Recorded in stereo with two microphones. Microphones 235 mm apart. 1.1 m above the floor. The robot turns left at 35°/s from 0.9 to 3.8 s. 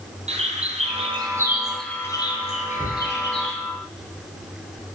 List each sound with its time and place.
0.3 s a bird: 30° right (ahead or behind), 2.5 m; by 3.6 s 60° left (ahead or behind), 2.5 m
2.8 s a cupboard door: 5° left (ahead or behind), 7.5 m; by 3.0 s 15° left (ahead or behind), 7.5 m